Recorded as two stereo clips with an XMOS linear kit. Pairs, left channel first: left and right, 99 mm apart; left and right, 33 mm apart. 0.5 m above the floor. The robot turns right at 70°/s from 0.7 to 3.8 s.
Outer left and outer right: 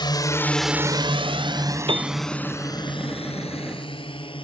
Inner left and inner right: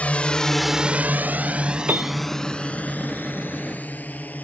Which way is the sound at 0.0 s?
50° left (ahead or behind).